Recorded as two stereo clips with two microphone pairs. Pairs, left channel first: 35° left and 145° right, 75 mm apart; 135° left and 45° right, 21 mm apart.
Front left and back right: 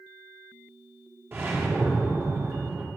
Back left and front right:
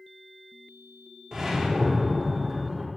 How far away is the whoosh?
About 1.4 m.